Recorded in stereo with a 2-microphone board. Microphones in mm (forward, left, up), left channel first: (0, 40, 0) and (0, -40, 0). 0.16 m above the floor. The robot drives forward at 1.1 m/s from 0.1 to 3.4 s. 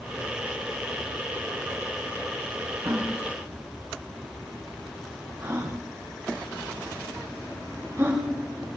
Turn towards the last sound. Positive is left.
turn(degrees=-30)  # may be behind; listen again after turning